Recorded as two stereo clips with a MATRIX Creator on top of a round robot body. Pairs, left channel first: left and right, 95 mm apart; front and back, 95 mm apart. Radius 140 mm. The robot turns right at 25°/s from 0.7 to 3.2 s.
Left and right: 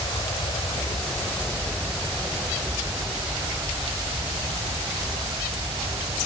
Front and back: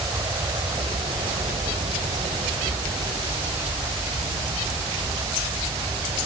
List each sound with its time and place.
0.0 s an aircraft: 135° left; by 6.3 s 140° right